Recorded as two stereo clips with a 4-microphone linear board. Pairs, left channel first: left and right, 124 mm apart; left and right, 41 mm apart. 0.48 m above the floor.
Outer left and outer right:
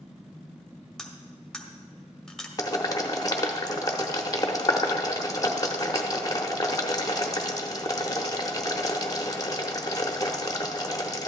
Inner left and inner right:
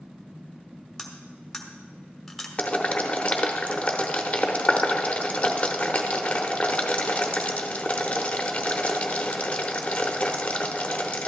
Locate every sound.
1.0 s cutlery clinking: 5° left (ahead or behind), 1.1 m
2.6 s boiling: 30° left (ahead or behind), 0.9 m